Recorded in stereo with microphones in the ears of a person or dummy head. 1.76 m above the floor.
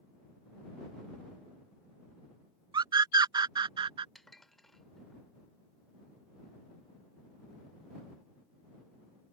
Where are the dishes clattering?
Centre (ahead or behind).